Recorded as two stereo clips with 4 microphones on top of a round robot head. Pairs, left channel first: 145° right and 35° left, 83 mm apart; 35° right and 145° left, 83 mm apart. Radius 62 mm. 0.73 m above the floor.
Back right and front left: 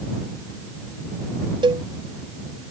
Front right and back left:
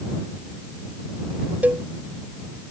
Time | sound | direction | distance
1.6 | a cowbell | 70° left | ?